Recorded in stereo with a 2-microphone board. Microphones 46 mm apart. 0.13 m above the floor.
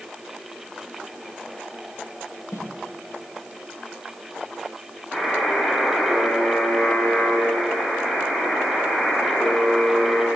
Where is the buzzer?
10° left (ahead or behind), 8 m.